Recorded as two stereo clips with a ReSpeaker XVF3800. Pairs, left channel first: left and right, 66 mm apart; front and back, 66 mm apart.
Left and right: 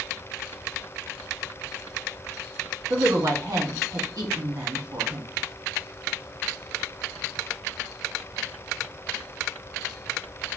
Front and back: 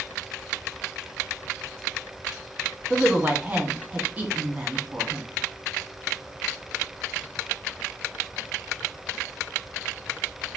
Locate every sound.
2.9 s a woman speaking: 115° right, 1.2 m